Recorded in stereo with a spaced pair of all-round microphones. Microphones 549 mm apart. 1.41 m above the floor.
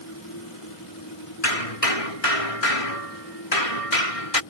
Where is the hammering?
85° left.